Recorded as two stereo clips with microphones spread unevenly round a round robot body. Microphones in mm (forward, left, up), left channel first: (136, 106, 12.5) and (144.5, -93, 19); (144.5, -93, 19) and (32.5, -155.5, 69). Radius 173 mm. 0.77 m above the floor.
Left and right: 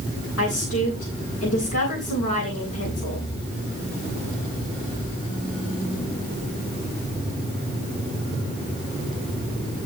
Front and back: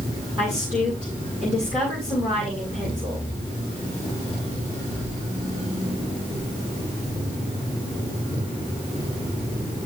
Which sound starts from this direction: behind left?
A woman speaking, at 0.4 s.